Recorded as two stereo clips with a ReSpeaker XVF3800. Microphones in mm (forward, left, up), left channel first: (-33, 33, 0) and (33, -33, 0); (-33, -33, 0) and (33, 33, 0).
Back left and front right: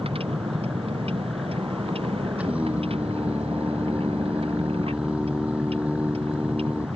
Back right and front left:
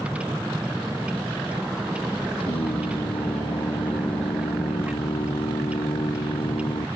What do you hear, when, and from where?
0.0 s a vehicle: 35° right
2.4 s singing: 120° right